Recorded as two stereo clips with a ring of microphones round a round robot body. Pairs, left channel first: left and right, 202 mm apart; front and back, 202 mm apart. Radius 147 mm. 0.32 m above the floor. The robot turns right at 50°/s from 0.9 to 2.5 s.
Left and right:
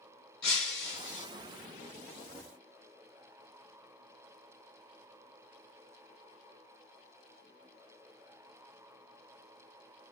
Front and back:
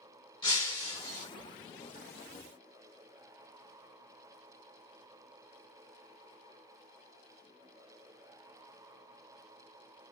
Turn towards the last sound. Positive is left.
turn(degrees=145)